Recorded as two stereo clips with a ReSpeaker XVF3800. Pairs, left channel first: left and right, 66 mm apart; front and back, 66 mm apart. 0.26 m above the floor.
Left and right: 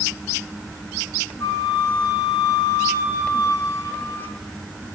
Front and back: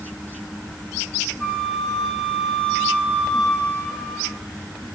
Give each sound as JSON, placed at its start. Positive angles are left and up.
{"t": 1.4, "sound": "a flute", "azimuth_deg": 70, "distance_m": 1.5}